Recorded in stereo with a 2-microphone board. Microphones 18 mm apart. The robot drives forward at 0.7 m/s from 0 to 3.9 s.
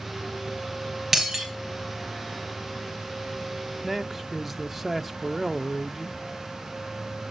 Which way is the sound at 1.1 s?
15° right (ahead or behind).